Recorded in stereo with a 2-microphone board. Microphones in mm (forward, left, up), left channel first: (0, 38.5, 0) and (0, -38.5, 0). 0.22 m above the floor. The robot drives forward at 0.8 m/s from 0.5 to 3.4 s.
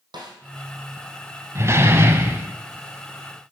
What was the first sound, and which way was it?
A snare drum, 70° right (ahead or behind).